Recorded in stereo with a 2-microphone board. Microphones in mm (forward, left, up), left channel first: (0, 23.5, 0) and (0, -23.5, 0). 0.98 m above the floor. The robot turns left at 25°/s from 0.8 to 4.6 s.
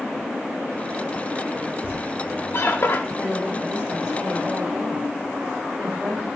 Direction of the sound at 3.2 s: 45° left.